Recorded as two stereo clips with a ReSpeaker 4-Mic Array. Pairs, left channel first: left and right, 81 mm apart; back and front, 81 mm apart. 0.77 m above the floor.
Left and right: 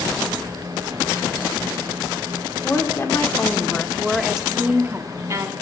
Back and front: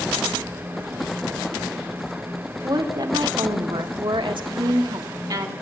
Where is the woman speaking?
35° left, 1.8 m; by 5.5 s 45° right, 1.3 m.